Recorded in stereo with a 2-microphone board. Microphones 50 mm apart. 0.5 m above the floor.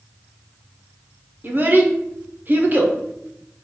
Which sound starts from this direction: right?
A child speaking, at 1.4 s.